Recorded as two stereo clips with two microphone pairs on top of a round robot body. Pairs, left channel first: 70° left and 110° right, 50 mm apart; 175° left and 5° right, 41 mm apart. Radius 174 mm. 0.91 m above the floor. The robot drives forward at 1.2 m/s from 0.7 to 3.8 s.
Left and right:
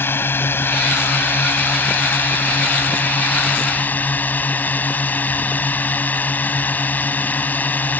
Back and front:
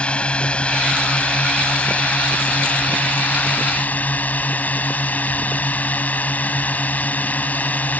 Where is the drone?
110° left; by 8.0 s 125° left.